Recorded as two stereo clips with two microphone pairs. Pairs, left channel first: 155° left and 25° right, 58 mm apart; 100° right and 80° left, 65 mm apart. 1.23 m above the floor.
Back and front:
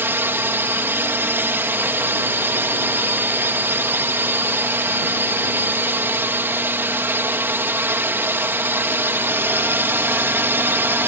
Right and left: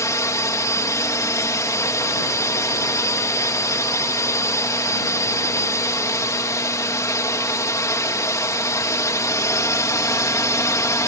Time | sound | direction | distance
0.0 | a drone | 75° right | ?